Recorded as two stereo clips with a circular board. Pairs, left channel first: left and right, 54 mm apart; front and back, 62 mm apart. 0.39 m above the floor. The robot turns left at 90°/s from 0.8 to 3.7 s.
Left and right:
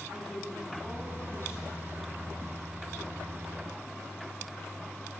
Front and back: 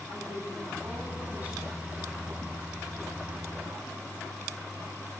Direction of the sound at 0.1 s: 175° left.